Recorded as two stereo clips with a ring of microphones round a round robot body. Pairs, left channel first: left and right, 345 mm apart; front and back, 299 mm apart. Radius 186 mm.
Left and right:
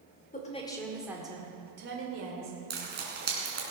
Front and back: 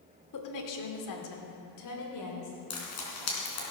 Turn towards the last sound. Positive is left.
turn(degrees=-25)